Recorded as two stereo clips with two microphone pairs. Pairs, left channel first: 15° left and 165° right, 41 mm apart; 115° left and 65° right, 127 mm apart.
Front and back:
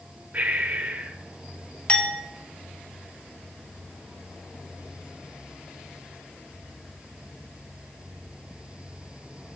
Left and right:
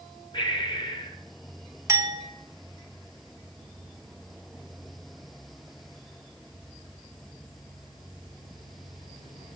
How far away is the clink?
About 0.7 m.